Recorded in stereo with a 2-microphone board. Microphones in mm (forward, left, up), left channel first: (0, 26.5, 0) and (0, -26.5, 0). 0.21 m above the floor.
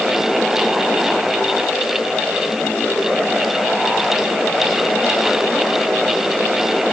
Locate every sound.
Only background noise.